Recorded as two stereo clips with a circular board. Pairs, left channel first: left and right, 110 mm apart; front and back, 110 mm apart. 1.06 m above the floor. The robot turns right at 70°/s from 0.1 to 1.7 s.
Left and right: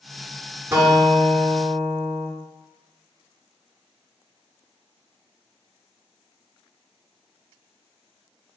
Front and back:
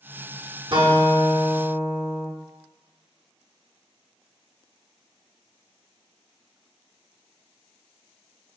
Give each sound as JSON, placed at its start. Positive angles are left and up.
{"t": 0.7, "sound": "a guitar", "azimuth_deg": -155, "distance_m": 1.1}